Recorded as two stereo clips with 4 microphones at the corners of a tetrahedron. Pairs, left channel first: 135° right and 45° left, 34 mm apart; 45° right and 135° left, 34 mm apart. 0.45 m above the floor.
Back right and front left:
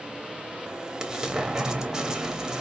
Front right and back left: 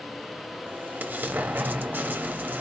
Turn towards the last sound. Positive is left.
turn(degrees=115)